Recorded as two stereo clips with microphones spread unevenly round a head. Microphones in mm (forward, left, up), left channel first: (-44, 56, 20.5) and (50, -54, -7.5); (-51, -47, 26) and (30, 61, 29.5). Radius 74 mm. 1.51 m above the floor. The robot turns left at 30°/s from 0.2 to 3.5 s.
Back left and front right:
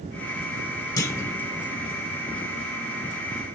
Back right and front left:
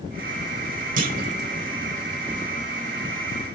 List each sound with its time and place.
1.0 s a clunk: 75° left, 1.8 m; by 1.4 s 60° left, 1.8 m